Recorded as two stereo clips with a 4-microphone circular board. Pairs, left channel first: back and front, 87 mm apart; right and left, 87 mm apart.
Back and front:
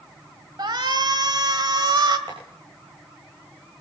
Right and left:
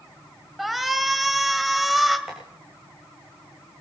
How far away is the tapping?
About 6.5 m.